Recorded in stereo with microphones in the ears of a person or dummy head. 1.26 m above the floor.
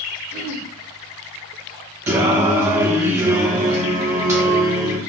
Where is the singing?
15° right (ahead or behind), 0.7 m.